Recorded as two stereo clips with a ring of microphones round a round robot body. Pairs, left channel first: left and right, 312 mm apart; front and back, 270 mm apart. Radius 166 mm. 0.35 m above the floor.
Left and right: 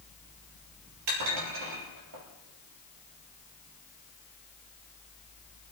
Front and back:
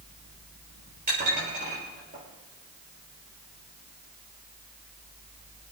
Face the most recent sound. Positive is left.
turn(degrees=-115)